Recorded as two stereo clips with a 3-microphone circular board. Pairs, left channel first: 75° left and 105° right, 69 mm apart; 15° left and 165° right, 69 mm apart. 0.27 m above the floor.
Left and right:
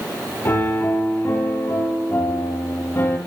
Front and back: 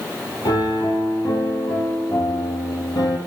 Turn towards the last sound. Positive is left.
turn(degrees=15)